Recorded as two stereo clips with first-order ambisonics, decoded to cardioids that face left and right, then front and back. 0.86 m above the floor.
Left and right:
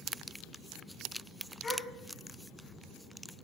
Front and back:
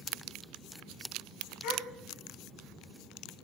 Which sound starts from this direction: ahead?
A gasp, at 1.6 s.